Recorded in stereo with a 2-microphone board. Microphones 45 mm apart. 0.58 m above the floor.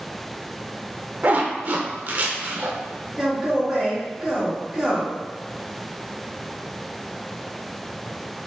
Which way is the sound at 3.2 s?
5° right (ahead or behind).